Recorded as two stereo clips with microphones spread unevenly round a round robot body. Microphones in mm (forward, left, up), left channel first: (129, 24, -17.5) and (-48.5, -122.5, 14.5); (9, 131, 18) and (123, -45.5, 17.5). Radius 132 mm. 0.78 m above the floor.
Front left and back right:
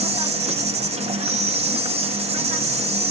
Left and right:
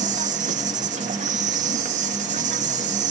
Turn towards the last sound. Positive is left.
turn(degrees=-85)